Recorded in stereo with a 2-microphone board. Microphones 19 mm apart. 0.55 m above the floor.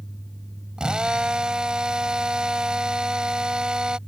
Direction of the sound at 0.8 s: 45° right (ahead or behind).